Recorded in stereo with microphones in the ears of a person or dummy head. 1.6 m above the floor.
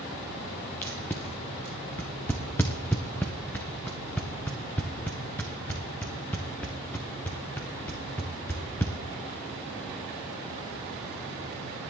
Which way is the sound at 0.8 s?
5° left (ahead or behind).